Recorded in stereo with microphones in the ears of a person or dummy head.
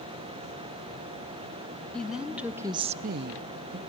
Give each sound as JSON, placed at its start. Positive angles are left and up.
{"t": 1.9, "sound": "a woman speaking", "side_deg": 5, "distance_m": 1.2}